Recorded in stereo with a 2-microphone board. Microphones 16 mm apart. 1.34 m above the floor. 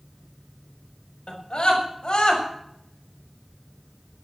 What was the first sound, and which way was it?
A scream, 65° left (ahead or behind).